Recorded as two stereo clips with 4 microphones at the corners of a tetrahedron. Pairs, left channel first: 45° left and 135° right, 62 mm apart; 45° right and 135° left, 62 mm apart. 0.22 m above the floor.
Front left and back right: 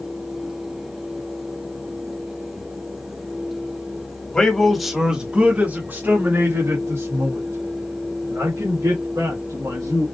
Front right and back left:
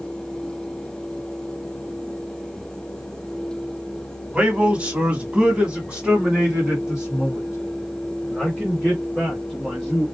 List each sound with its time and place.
4.3 s a man speaking: 105° left, 1.2 m; by 10.1 s 145° right, 3.5 m